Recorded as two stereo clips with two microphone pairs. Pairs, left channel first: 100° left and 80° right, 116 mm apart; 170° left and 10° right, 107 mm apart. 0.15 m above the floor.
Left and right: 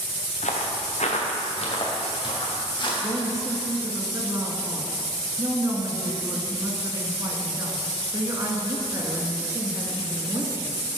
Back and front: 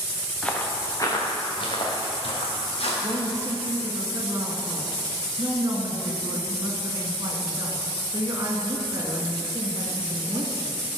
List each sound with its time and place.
0.4 s footsteps: 90° left, 1.4 m; by 2.9 s 145° left, 3 m
3.0 s a woman speaking: 35° right, 1.3 m